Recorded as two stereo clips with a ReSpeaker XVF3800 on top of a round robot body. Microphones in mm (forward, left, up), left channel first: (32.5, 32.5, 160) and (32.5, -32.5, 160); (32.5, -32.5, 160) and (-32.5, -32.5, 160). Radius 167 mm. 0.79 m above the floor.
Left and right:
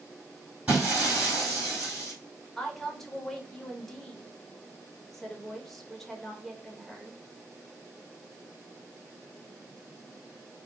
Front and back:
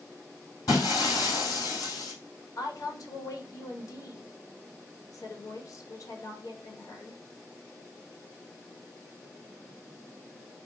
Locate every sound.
0.7 s breaking glass: 20° right, 2.5 m
2.6 s a woman speaking: 5° left, 1.7 m